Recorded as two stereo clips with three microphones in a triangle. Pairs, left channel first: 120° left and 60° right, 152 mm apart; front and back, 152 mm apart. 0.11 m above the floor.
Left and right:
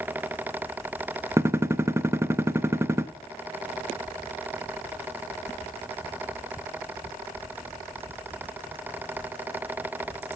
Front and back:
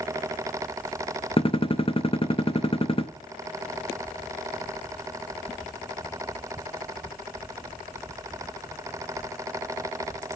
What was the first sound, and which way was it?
A gunshot, 5° left.